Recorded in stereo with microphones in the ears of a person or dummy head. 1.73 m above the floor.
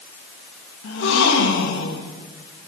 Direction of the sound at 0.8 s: 70° left (ahead or behind).